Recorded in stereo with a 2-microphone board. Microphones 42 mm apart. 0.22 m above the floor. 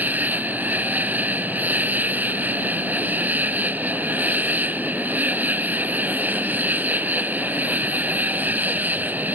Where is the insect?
45° right (ahead or behind).